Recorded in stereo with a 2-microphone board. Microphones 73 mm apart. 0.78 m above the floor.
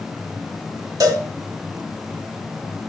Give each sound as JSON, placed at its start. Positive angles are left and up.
{"t": 1.0, "sound": "a cowbell", "side_deg": -50, "distance_m": 1.1}